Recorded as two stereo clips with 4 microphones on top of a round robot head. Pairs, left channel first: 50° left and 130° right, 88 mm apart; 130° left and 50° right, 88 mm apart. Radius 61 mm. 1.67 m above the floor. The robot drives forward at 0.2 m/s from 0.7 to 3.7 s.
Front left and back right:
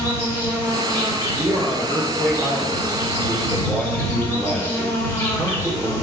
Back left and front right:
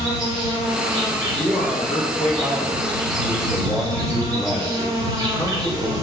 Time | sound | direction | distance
0.0 | an insect | 5° right | 1.3 m
1.4 | a man speaking | 175° left | 0.5 m